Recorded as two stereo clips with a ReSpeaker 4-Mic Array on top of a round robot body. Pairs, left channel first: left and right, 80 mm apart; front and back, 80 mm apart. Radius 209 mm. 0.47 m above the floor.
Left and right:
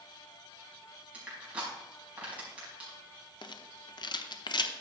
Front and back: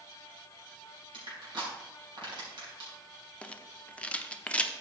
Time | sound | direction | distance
1.1 | crushing | 165° right | 5 m
3.4 | a rattle | 75° left | 1.0 m